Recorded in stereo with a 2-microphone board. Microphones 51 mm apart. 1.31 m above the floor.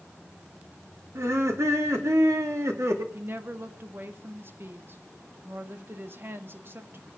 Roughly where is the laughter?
Right.